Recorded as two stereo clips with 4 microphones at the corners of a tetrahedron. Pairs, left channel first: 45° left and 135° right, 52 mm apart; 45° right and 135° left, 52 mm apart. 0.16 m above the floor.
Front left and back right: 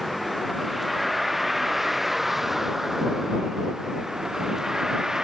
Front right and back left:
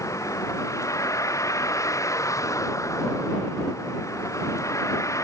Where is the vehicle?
45° right; by 5.2 s 55° right.